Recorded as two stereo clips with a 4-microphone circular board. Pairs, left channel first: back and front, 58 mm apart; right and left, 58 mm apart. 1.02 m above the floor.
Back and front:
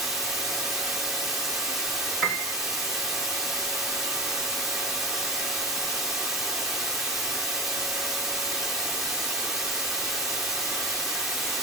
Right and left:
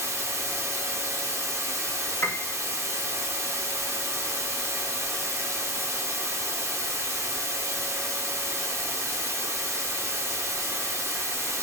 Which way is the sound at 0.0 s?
80° left.